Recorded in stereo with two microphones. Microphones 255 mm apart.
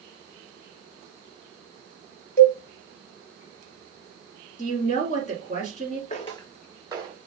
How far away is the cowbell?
About 1.4 m.